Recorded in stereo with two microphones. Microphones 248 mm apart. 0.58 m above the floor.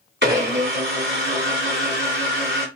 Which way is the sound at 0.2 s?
45° right (ahead or behind).